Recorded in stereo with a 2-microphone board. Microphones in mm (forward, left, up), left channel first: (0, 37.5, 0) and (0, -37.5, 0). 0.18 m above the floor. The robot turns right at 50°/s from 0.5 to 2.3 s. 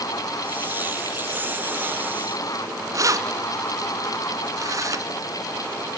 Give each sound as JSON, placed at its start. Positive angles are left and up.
{"t": 2.9, "sound": "keys jangling", "side_deg": -50, "distance_m": 1.4}